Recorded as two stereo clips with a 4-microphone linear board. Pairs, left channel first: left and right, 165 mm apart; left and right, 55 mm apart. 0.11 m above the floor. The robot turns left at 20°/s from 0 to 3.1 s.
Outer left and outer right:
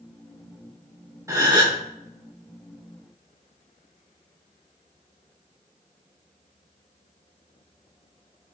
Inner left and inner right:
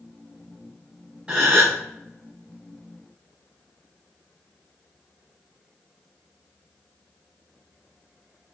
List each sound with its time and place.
1.3 s a gasp: 20° right (ahead or behind), 2.5 m; by 1.8 s 30° right (ahead or behind), 2.5 m